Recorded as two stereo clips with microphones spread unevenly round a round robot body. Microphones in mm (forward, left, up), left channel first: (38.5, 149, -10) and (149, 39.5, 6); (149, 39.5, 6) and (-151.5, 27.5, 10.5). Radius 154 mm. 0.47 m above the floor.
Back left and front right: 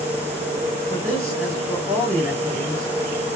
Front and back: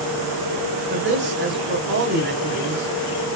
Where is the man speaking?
125° right, 2.5 m.